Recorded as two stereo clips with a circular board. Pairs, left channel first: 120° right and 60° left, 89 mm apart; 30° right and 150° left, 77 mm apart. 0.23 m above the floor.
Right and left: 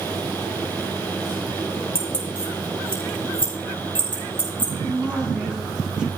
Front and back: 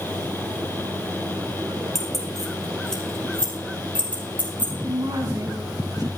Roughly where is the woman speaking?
Behind left.